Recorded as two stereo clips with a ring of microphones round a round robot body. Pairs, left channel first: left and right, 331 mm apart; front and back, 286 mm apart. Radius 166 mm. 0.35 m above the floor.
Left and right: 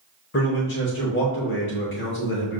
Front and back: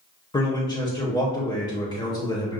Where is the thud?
No thud in this recording.